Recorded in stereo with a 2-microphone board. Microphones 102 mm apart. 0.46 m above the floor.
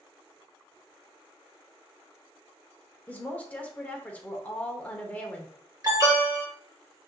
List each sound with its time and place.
3.1 s a woman speaking: 15° left (ahead or behind), 1.1 m
5.8 s an alarm: 35° right (ahead or behind), 1.6 m